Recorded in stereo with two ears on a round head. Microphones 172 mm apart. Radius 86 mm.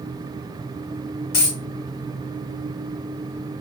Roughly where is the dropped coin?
Left.